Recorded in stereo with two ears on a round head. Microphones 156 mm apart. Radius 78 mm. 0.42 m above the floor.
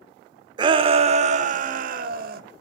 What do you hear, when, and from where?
0.6 s a shout: 25° right (ahead or behind), 0.9 m; by 2.4 s 55° right (ahead or behind), 1.4 m